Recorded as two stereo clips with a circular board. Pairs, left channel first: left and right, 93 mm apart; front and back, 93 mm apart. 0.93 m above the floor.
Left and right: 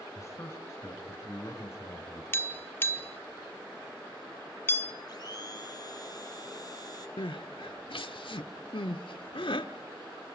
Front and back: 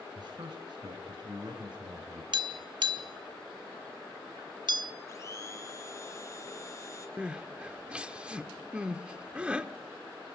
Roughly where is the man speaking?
Behind left.